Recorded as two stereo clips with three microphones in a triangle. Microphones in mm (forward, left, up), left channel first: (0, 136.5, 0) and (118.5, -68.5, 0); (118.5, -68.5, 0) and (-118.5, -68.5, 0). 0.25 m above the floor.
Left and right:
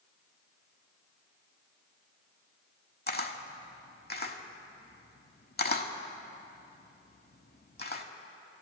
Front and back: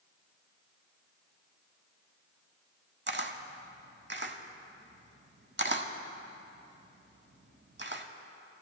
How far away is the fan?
No fan in this recording.